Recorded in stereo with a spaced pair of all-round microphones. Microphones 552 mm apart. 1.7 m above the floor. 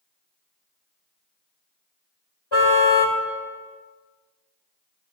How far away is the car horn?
About 2.5 m.